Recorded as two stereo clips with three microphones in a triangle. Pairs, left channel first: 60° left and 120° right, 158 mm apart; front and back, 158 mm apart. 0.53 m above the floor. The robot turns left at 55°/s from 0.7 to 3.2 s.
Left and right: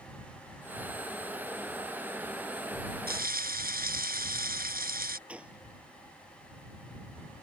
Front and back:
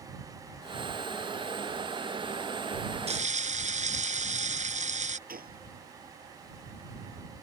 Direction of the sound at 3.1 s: 135° right.